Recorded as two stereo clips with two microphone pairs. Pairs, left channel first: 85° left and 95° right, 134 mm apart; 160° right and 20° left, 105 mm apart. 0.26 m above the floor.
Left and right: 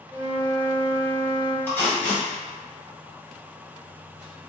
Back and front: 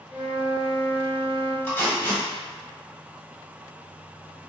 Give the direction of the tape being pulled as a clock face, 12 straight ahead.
7 o'clock.